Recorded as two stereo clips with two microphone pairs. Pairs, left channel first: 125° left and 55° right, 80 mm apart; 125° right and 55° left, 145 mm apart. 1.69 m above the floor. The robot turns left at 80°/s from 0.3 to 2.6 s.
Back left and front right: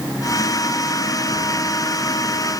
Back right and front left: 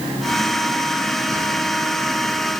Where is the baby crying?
I don't hear a baby crying.